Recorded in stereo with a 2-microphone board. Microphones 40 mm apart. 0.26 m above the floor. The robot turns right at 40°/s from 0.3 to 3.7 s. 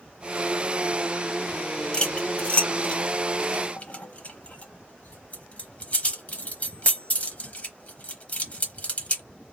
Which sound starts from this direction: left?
Cutlery clinking, at 1.9 s.